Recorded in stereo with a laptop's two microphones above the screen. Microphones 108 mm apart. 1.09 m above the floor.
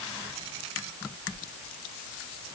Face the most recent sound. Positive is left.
No sound to turn to.